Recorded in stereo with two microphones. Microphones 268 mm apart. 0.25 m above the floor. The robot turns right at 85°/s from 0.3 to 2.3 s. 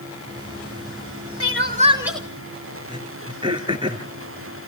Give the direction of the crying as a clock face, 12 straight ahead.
2 o'clock.